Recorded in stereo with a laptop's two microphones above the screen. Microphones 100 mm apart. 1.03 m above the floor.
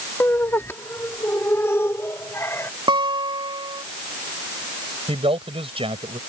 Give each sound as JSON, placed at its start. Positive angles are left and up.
{"t": 0.2, "sound": "laughter", "side_deg": 25}
{"t": 2.9, "sound": "a guitar", "side_deg": -55}
{"t": 5.1, "sound": "a man speaking", "side_deg": -70}